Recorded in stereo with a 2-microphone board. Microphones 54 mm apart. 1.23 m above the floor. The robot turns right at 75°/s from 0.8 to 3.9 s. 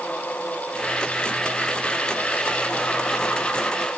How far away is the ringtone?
No ringtone in this recording.